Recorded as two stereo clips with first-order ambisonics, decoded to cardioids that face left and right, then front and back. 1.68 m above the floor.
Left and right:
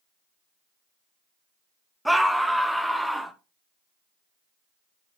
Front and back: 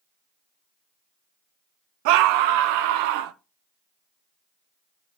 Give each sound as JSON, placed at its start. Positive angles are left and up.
{"t": 2.0, "sound": "a scream", "azimuth_deg": 180, "distance_m": 1.1}